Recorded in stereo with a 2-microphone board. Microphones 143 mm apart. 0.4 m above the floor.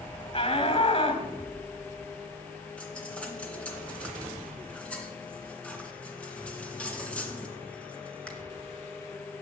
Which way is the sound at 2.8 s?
10° left (ahead or behind).